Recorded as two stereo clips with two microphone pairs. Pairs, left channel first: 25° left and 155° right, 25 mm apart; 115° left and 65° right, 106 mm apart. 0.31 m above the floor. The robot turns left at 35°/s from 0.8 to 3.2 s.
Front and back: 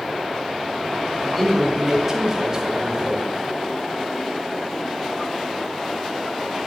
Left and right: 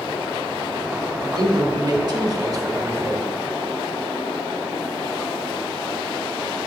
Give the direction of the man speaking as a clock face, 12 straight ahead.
2 o'clock.